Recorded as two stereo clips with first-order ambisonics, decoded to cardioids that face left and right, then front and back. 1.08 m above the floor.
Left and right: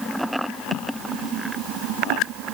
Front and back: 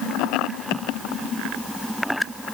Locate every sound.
Only background noise.